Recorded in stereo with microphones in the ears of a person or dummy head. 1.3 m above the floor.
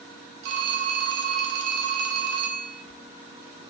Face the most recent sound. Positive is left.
turn(degrees=-55)  # may be behind; listen again after turning